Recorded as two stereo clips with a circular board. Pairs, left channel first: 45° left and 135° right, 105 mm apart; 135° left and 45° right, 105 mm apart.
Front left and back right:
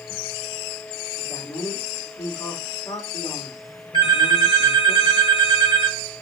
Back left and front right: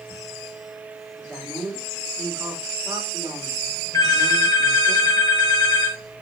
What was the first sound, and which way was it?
A man speaking, 20° left.